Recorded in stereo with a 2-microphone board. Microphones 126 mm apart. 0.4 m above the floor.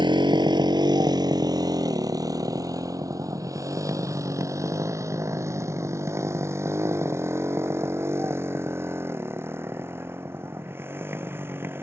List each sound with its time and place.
0.0 s a motorcycle: 40° right (ahead or behind); by 11.8 s 20° right (ahead or behind)